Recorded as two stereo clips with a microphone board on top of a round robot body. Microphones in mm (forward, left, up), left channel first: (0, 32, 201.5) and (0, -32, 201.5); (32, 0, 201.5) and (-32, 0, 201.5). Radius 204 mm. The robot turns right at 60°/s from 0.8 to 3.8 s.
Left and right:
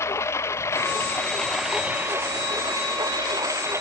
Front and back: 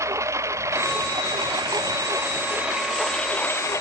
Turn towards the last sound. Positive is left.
turn(degrees=-45)